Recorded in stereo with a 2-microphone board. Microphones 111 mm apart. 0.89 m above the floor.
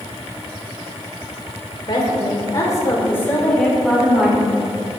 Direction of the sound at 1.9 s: 40° left (ahead or behind).